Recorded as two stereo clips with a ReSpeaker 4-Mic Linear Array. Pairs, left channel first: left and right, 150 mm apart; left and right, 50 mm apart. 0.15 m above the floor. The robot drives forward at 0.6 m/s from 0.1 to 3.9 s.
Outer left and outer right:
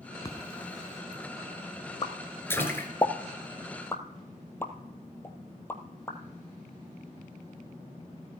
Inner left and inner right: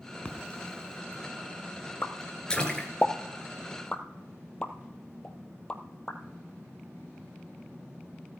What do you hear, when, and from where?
0.2 s a splash: 25° left (ahead or behind), 1.5 m; by 2.9 s 15° left (ahead or behind), 2.5 m
2.0 s a pop: 40° left (ahead or behind), 0.8 m; by 6.2 s 15° left (ahead or behind), 1.7 m